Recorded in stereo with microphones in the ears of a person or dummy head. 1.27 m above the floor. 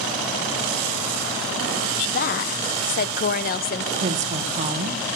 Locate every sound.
2.0 s a woman speaking: 50° left (ahead or behind), 0.8 m
4.0 s a woman speaking: 40° right (ahead or behind), 1.3 m